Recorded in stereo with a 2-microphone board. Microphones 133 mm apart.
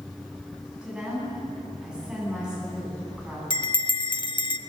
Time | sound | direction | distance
0.8 | a woman speaking | 5° right (ahead or behind) | 10 m
3.5 | a bell | 35° left (ahead or behind) | 0.7 m